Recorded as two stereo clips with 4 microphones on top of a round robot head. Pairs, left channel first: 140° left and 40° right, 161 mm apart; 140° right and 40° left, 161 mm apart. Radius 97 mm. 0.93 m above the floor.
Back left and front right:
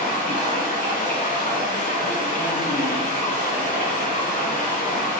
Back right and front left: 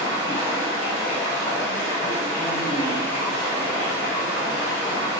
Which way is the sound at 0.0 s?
170° left.